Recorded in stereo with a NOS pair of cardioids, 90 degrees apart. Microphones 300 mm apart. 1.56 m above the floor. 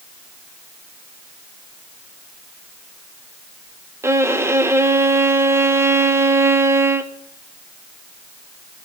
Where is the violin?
10° right, 1.1 m.